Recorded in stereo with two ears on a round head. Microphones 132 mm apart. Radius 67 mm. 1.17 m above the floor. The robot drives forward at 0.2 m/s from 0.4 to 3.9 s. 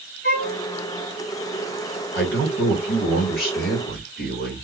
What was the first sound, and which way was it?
A violin, 60° left (ahead or behind).